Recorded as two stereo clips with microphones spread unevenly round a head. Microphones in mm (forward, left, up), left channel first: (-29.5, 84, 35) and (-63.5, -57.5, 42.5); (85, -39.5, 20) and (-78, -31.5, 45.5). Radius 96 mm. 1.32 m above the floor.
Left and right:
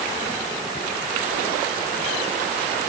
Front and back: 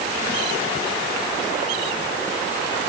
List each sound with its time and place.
Only background noise.